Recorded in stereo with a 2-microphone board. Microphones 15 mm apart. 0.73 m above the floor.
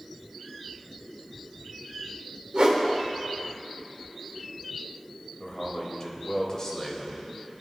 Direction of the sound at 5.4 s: 30° left (ahead or behind).